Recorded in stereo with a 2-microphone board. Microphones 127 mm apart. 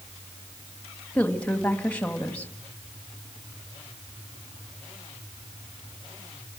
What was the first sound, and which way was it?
A woman speaking, 15° left (ahead or behind).